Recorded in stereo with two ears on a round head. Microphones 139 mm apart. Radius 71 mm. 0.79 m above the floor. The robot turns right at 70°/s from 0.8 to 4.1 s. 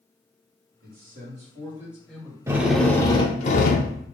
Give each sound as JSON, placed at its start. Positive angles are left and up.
{"t": 0.8, "sound": "a man speaking", "azimuth_deg": -90, "distance_m": 1.7}
{"t": 2.5, "sound": "a drill", "azimuth_deg": -20, "distance_m": 0.5}